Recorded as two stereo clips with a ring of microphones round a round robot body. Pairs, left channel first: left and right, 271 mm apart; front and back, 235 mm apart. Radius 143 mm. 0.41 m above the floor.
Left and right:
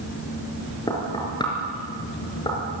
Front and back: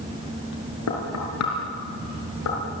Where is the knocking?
15° left, 5 m.